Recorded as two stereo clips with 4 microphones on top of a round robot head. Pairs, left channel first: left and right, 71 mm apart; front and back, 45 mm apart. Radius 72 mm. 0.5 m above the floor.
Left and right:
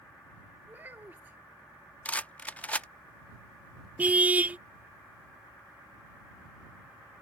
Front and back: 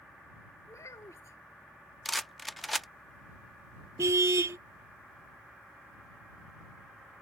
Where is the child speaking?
20° right.